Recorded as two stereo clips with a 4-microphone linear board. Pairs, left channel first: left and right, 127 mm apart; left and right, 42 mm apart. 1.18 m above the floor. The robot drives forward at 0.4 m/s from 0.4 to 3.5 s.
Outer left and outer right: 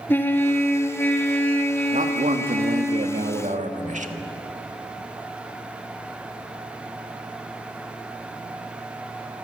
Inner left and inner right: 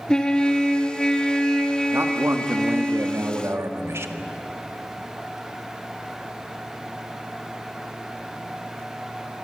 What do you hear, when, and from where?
0.1 s a trumpet: 15° left (ahead or behind), 1.9 m; by 2.9 s 10° left (ahead or behind), 3 m
1.9 s a man speaking: 80° right, 1.6 m; by 4.1 s 75° right (ahead or behind), 1.7 m